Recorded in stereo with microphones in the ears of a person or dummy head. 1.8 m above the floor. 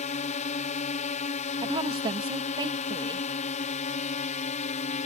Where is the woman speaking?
30° right (ahead or behind).